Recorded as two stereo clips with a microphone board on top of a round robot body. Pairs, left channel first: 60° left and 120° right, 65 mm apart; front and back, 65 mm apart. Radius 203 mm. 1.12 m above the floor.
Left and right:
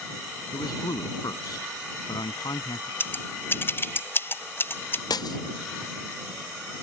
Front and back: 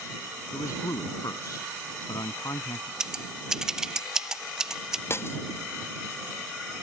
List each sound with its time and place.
0.5 s a man speaking: 35° left
3.0 s scissors: 100° left
5.1 s breaking glass: 50° left